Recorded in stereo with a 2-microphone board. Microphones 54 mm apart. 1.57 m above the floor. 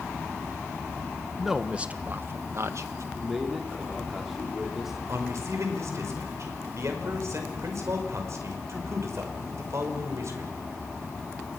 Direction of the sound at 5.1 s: 65° right (ahead or behind).